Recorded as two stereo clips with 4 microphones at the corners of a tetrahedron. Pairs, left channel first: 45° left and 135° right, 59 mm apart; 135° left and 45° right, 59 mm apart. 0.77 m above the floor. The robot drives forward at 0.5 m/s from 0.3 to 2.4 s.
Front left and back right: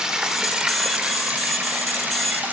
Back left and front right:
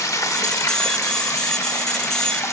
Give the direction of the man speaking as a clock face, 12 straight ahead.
No man speaking in this recording.